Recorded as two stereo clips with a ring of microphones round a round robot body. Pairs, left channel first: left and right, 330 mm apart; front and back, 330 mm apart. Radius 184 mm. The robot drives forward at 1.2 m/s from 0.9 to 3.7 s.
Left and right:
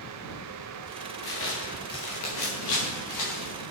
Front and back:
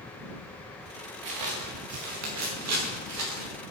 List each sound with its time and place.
1.2 s footsteps: 150° left, 3.5 m; by 3.5 s 135° left, 7 m